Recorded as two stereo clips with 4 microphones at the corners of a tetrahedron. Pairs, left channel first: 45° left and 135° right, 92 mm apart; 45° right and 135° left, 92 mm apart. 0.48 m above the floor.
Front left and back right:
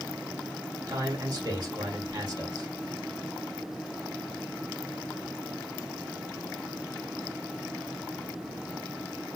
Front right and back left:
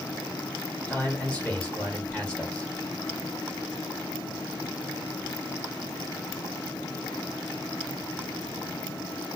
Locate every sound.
0.9 s a man speaking: 115° right, 1.7 m